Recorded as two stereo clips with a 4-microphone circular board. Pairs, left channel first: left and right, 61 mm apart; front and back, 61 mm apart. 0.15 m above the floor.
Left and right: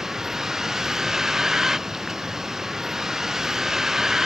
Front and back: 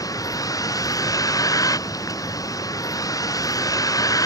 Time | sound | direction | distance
0.0 | a vehicle | 10° right | ?